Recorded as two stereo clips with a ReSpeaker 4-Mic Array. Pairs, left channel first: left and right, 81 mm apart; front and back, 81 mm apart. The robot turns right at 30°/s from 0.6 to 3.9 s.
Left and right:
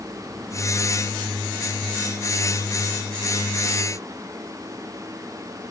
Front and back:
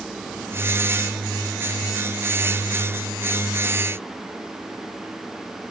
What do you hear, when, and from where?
Only background noise.